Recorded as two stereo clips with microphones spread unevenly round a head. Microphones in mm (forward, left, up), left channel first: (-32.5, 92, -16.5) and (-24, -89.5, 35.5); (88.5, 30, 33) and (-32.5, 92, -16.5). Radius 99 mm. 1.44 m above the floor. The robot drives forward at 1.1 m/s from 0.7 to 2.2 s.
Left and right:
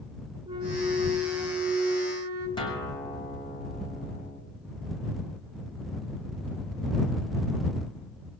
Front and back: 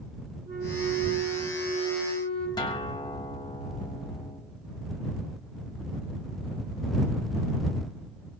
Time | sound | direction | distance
0.5 | a flute | 155° right | 2.0 m
2.6 | a guitar | 20° left | 3 m